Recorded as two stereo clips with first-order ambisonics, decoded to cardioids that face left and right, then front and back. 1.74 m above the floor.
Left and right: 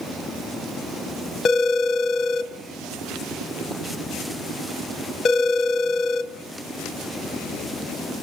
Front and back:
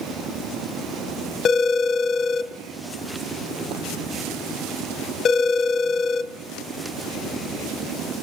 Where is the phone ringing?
45° left, 0.8 m.